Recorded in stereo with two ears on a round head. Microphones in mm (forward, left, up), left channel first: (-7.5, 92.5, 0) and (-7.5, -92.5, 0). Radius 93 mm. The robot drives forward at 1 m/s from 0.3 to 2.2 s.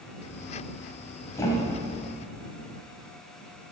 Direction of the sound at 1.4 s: 15° left (ahead or behind).